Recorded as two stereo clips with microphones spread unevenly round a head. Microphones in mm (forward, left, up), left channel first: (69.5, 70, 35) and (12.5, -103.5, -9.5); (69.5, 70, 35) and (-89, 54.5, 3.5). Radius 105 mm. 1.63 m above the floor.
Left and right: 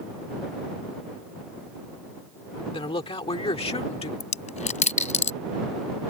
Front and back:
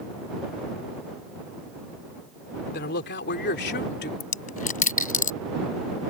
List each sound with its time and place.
2.7 s a man speaking: 10° left; by 4.1 s 15° left
4.2 s a dropped coin: 30° left